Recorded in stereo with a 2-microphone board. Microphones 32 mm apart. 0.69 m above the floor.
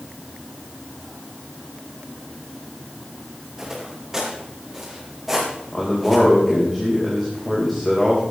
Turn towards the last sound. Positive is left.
turn(degrees=5)  # may be behind; listen again after turning